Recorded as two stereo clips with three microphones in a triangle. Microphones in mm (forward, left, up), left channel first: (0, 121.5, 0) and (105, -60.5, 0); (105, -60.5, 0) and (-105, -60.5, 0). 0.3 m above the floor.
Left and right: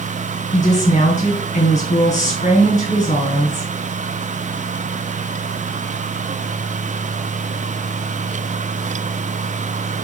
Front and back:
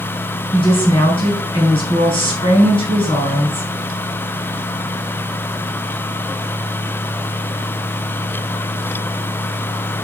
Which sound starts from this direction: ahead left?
A woman speaking, at 0.5 s.